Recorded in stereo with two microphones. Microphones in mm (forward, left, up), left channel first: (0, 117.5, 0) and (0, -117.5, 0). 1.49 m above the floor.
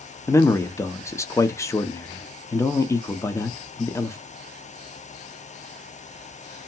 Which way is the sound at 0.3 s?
10° left (ahead or behind).